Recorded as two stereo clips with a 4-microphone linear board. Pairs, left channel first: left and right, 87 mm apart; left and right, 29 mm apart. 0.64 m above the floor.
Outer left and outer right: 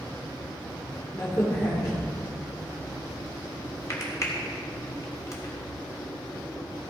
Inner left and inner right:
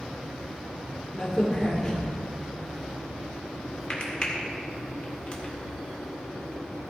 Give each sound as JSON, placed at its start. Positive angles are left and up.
{"t": 1.1, "sound": "a crack", "side_deg": 40, "distance_m": 2.0}